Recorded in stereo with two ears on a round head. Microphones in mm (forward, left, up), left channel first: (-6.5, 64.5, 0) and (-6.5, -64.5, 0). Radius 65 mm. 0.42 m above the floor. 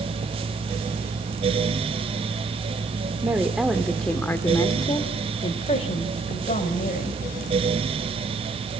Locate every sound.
3.2 s a woman speaking: 15° right (ahead or behind), 1.4 m; by 7.2 s 55° left (ahead or behind), 3 m